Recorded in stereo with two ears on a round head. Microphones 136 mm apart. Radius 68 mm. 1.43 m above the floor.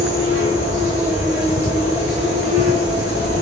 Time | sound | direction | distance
0.0 | an insect | 15° right (ahead or behind) | 1.9 m